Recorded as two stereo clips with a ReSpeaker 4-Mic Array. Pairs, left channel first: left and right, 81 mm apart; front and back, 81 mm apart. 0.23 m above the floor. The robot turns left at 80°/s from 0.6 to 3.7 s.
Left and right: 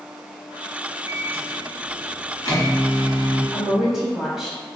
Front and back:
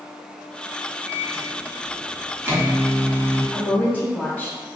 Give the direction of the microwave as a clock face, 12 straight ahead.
4 o'clock.